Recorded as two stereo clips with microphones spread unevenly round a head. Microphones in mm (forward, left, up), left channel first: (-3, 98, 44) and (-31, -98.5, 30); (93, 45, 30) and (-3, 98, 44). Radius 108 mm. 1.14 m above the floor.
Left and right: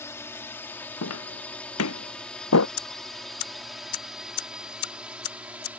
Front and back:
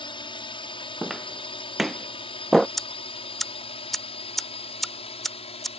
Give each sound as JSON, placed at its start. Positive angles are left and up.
{"t": 0.0, "sound": "a drone", "azimuth_deg": 5}
{"t": 1.0, "sound": "footsteps", "azimuth_deg": 65}
{"t": 2.8, "sound": "ticking", "azimuth_deg": 60}